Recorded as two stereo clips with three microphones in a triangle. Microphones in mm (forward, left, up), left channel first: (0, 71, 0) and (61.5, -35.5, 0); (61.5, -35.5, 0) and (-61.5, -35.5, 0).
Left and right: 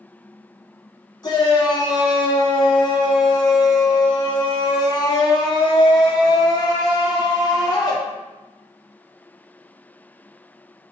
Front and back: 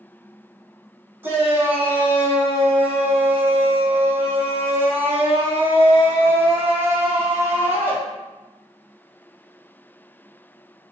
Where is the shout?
120° left, 1.1 m.